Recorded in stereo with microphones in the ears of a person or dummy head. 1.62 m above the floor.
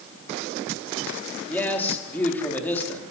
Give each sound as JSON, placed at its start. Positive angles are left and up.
{"t": 1.5, "sound": "a man speaking", "side_deg": 5, "distance_m": 4.0}